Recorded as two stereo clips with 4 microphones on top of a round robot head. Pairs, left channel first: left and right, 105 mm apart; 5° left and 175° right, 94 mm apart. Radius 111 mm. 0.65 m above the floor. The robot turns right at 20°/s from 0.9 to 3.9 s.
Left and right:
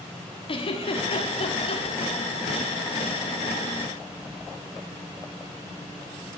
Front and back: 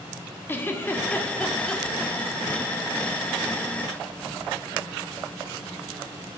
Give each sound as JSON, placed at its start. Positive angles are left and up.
{"t": 0.5, "sound": "a giggle", "azimuth_deg": 70, "distance_m": 1.7}